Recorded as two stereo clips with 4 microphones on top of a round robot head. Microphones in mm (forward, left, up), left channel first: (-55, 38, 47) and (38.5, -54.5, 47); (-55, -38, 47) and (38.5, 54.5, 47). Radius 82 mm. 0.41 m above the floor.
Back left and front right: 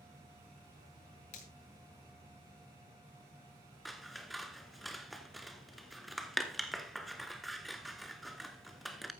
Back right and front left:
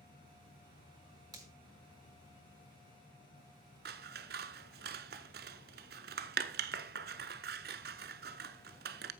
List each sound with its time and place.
0.0 s an insect: 115° right, 3.5 m
1.3 s a finger snap: 105° left, 5.5 m
3.9 s scissors: 45° left, 0.8 m